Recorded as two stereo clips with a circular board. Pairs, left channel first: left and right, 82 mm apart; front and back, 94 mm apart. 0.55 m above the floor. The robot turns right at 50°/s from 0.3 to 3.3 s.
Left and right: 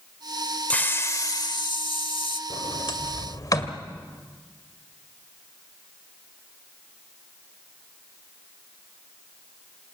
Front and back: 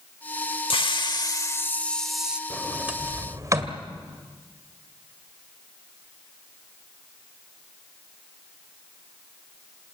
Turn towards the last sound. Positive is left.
turn(degrees=130)